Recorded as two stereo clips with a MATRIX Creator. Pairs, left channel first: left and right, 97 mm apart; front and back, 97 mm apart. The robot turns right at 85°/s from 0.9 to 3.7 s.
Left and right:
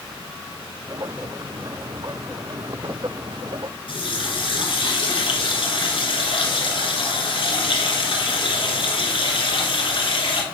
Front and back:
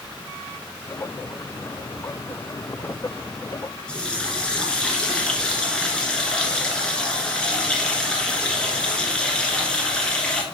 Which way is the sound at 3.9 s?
80° left.